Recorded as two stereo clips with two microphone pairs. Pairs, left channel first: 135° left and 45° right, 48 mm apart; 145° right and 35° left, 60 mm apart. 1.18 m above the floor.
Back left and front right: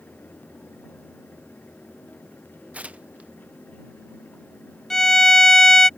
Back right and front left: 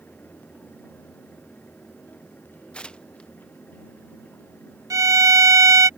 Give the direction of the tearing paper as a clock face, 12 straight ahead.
3 o'clock.